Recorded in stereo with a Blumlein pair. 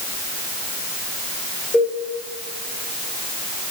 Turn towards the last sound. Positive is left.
turn(degrees=15)